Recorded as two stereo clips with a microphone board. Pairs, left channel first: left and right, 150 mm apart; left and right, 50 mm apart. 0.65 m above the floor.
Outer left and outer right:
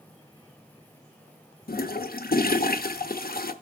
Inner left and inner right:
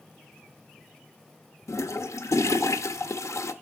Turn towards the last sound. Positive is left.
turn(degrees=80)